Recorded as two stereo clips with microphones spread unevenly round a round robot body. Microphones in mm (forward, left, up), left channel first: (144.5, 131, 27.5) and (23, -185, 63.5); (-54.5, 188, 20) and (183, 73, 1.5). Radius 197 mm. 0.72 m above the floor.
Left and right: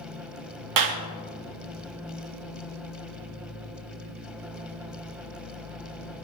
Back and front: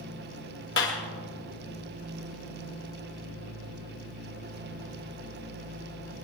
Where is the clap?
150° right, 1.1 m.